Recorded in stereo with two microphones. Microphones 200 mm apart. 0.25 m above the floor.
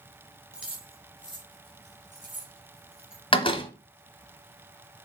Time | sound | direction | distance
0.5 | keys jangling | 5° right (ahead or behind) | 2.5 m
3.3 | a door slam | 25° left (ahead or behind) | 1.1 m